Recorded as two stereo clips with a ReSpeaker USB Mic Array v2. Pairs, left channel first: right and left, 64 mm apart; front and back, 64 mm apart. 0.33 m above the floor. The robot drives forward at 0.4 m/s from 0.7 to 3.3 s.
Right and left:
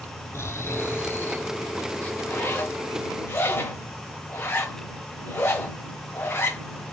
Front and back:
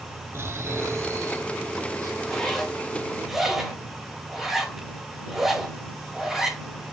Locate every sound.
0.3 s snoring: 135° right, 0.7 m; by 2.1 s 155° right, 1.2 m
2.2 s a zipper: 70° right, 1.6 m; by 6.6 s 95° right, 1.5 m